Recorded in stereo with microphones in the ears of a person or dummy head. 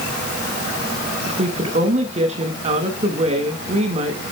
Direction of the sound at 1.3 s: 40° right (ahead or behind).